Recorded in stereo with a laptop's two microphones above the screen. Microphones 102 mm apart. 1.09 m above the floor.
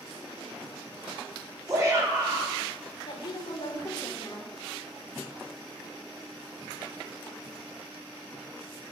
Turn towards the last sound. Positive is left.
turn(degrees=45)  # may be behind; listen again after turning